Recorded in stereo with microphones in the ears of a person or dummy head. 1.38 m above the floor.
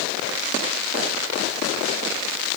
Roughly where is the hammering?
I don't hear hammering.